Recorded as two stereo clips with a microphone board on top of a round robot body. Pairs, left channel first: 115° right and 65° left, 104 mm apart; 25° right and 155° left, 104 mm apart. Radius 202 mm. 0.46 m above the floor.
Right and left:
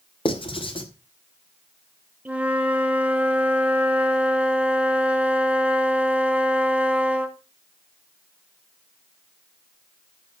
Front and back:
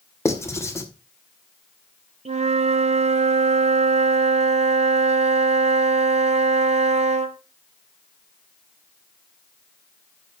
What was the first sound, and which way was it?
Writing, 85° right.